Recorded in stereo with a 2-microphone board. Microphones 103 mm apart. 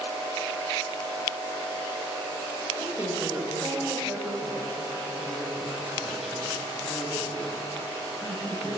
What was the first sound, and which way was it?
A woman speaking, 30° right (ahead or behind).